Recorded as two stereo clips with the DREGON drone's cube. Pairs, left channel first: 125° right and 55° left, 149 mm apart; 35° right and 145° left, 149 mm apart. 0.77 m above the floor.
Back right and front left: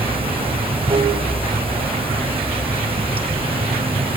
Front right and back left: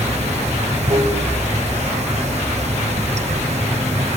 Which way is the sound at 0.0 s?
105° left.